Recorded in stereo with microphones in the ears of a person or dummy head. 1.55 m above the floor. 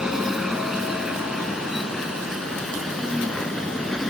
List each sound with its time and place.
0.0 s a vehicle: centre (ahead or behind); by 4.1 s 5° left (ahead or behind)